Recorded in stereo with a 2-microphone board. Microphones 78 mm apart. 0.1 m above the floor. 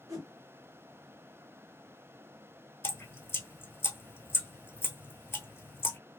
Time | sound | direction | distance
0.1 | a whoosh | 45° right (ahead or behind) | 2.5 m
2.8 | dripping | 30° left (ahead or behind) | 0.7 m